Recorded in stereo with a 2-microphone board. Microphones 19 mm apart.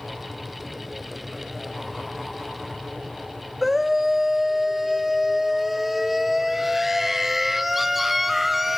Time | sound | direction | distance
3.6 | a scream | 10° right (ahead or behind) | 1.3 m